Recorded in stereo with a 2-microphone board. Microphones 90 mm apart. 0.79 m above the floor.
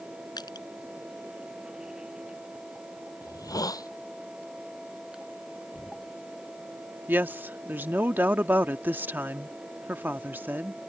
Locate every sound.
0.4 s crushing: 50° left (ahead or behind)
3.2 s a hiss: 45° left (ahead or behind)
5.7 s knocking: 10° left (ahead or behind)
7.1 s a woman speaking: 20° right (ahead or behind)